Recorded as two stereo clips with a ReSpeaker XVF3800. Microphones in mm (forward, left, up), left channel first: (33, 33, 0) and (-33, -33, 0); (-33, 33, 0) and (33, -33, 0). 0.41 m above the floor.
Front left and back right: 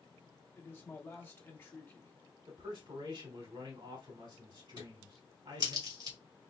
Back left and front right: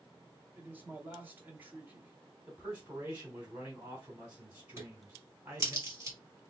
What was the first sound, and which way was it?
A man speaking, 5° left.